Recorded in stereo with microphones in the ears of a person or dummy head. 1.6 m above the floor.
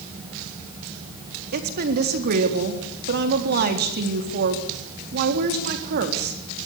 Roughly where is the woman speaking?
Right.